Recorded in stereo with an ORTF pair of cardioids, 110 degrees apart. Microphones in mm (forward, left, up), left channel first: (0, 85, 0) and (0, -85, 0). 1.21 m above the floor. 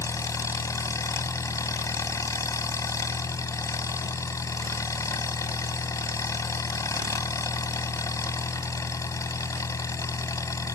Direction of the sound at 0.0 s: 20° left.